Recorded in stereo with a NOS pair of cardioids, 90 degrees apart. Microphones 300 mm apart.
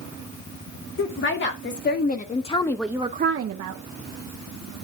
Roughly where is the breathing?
No breathing in this recording.